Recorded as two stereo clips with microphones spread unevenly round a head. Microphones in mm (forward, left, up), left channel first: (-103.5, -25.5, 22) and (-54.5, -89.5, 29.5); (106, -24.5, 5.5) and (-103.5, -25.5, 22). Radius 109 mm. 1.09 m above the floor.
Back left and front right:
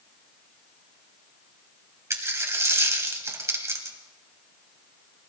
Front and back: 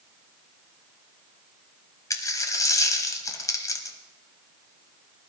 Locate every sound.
2.1 s a dropped coin: 75° right, 1.1 m